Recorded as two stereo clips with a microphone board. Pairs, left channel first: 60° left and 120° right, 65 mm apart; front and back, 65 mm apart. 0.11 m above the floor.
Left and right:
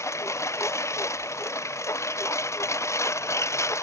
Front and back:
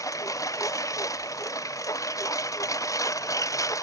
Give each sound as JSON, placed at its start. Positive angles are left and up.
{"t": 0.0, "sound": "a lawn mower", "azimuth_deg": 25}